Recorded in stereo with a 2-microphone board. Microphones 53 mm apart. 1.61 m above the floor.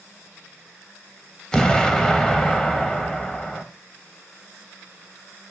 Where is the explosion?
10° left (ahead or behind), 0.6 m.